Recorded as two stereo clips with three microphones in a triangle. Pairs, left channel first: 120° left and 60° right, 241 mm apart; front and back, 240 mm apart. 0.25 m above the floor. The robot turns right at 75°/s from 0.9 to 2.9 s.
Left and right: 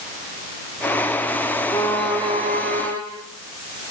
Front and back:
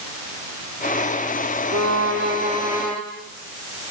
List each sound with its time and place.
1.7 s a violin: 175° right, 4 m; by 3.0 s 85° right, 4 m